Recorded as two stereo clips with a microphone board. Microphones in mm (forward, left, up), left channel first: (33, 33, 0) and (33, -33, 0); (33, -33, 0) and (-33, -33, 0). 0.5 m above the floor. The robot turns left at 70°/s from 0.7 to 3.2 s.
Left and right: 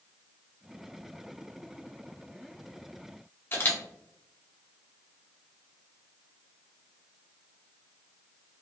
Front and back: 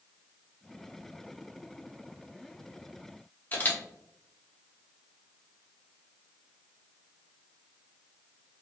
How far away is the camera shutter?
About 0.6 m.